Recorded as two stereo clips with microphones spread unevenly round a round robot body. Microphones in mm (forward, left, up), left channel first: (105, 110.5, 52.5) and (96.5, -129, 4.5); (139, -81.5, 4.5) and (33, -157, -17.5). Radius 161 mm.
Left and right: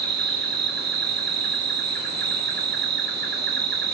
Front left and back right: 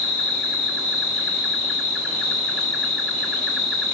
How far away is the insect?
About 1.4 m.